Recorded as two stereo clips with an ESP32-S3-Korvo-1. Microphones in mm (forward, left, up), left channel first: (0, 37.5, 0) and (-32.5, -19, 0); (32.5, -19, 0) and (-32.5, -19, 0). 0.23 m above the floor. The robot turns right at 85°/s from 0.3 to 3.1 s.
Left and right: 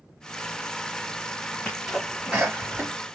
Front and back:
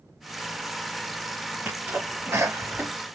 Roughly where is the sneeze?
Behind left.